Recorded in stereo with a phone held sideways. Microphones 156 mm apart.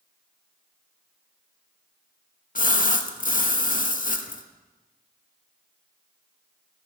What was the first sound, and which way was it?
A splash, 60° left (ahead or behind).